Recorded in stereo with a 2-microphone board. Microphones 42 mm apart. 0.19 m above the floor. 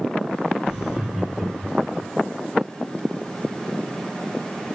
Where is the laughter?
15° right (ahead or behind), 4.5 m; by 2.1 s 5° right (ahead or behind), 3.5 m.